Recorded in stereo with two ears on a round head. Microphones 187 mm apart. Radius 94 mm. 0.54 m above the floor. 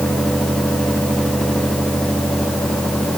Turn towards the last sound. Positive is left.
No sound to turn to.